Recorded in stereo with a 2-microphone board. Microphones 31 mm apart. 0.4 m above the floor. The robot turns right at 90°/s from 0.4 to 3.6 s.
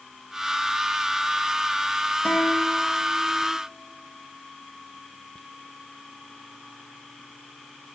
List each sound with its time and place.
2.2 s a guitar: 45° left, 3.5 m; by 3.6 s 165° left, 3.5 m